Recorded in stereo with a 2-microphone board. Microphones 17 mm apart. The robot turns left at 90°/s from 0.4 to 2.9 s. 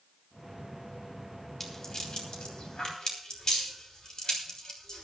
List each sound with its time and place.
1.6 s a rattle: 20° left (ahead or behind), 3 m; by 5.0 s 45° left (ahead or behind), 3 m